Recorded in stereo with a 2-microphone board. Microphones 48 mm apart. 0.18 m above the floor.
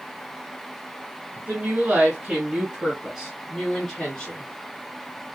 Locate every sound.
1.4 s a woman speaking: 35° right (ahead or behind), 1.5 m; by 4.5 s 20° left (ahead or behind), 1.6 m